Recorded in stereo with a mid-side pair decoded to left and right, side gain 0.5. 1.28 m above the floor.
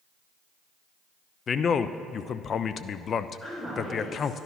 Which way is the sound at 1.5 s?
45° left.